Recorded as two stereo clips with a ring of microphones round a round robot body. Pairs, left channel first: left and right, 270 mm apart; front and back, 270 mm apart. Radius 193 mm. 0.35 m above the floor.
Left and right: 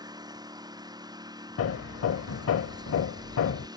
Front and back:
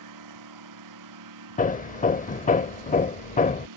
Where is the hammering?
60° left.